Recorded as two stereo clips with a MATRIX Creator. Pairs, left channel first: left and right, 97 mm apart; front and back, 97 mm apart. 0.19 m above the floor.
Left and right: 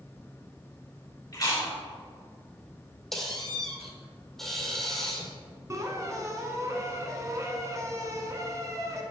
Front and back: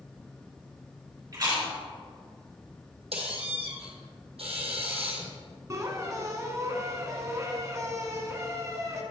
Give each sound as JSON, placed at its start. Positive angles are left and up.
{"t": 1.3, "sound": "chewing", "azimuth_deg": 135, "distance_m": 2.5}
{"t": 3.1, "sound": "a squeak", "azimuth_deg": 175, "distance_m": 1.8}
{"t": 5.7, "sound": "a squeak", "azimuth_deg": -135, "distance_m": 1.0}